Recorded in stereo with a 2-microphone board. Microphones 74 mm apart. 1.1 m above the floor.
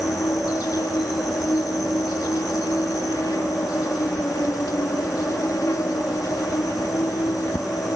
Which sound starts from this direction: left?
An insect, at 0.0 s.